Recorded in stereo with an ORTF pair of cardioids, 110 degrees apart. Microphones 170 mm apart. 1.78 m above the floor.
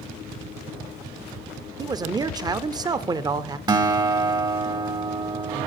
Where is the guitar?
25° right, 0.9 m.